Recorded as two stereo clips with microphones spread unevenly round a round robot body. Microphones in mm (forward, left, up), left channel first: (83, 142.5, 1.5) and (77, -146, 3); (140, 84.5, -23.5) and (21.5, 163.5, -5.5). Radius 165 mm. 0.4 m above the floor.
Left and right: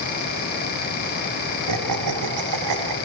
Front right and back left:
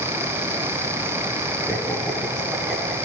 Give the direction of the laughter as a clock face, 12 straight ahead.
4 o'clock.